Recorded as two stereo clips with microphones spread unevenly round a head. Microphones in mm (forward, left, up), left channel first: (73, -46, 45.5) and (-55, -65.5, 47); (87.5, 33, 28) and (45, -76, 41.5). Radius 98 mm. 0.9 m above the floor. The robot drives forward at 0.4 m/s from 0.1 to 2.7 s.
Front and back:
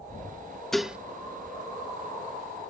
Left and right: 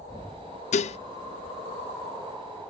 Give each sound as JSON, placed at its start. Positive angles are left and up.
{"t": 0.7, "sound": "dishes clattering", "azimuth_deg": 95}